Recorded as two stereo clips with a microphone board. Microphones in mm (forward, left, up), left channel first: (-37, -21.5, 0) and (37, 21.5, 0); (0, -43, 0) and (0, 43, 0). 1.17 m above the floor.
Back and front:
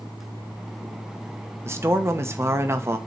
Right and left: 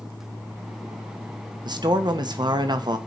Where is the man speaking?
80° left, 1.1 m.